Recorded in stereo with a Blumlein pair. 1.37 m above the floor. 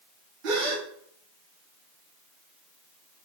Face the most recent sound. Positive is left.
turn(degrees=-40)